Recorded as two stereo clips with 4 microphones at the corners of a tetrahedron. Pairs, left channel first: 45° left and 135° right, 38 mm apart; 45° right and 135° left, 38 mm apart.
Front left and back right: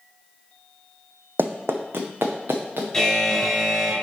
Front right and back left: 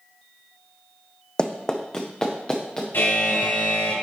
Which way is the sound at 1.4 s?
110° right.